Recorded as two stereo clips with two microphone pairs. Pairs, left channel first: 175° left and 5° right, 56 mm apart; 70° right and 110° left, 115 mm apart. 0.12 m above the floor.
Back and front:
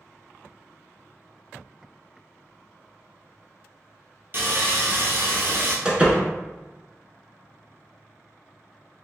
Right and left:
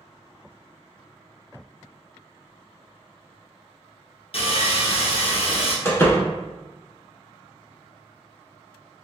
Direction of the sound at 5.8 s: 40° right.